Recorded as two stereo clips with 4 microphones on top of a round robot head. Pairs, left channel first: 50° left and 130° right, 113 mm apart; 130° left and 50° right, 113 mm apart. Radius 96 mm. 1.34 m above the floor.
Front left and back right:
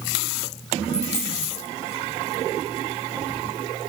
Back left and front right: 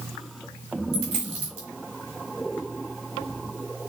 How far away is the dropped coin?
About 1.8 m.